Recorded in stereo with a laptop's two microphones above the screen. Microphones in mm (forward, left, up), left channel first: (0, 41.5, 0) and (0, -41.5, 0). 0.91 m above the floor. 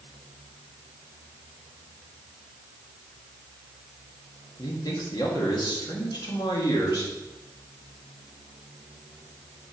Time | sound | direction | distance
4.6 | a man speaking | 60° left (ahead or behind) | 1.8 m